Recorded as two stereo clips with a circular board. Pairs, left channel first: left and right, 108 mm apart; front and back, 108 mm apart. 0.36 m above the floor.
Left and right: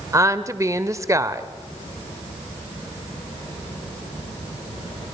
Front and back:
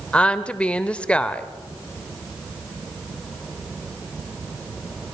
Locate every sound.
0.1 s a woman speaking: 70° right, 0.9 m